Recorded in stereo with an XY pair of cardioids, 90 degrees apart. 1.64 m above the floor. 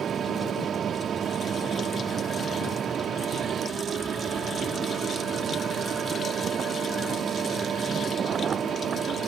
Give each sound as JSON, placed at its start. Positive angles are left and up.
{"t": 0.0, "sound": "a fan", "azimuth_deg": -60}